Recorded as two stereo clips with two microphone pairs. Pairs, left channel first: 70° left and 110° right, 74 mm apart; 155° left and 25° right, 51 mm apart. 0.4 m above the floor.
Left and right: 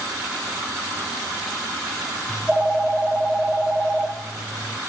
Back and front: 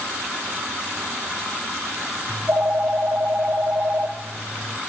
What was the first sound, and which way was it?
A phone ringing, 30° right.